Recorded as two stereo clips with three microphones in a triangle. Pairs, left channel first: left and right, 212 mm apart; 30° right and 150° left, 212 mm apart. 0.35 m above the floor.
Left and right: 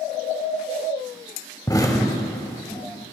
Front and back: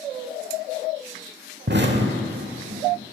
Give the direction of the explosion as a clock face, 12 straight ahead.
7 o'clock.